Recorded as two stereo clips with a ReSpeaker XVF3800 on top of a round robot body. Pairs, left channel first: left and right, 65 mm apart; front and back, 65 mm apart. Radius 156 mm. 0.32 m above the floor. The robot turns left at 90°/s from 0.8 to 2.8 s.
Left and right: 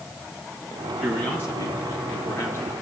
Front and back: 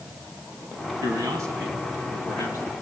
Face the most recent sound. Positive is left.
turn(degrees=20)